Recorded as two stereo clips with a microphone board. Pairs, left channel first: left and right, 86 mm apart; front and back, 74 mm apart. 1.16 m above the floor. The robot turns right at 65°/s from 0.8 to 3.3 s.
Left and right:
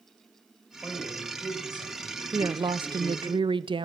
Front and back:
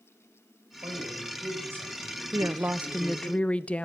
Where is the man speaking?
Straight behind, 5 m; by 3.3 s 20° right, 5 m.